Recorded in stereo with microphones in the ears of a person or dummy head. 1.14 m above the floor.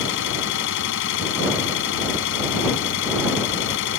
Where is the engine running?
65° left (ahead or behind).